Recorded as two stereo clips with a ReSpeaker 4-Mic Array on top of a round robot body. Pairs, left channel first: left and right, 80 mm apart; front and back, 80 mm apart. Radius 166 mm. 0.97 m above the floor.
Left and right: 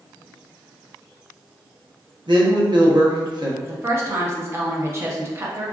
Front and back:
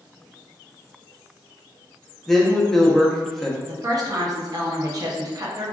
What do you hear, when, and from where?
2.3 s a woman speaking: 85° right, 0.8 m
3.6 s a woman speaking: 145° right, 0.7 m